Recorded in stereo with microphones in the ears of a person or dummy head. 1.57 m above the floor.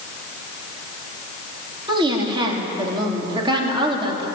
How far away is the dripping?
No dripping in this recording.